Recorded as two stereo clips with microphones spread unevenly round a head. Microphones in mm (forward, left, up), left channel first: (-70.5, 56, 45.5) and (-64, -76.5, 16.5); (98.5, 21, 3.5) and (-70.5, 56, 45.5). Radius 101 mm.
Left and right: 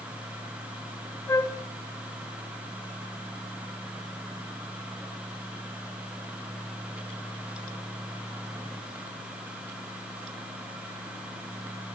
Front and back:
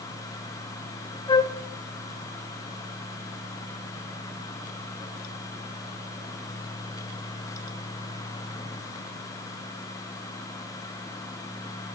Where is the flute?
15° left, 0.7 m.